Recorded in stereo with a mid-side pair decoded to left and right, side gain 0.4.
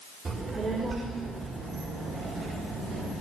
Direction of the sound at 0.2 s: 45° right.